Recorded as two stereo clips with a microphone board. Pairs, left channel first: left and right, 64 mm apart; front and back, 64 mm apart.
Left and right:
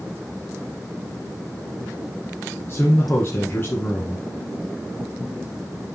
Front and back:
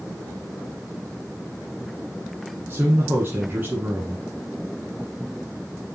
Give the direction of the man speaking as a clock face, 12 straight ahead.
8 o'clock.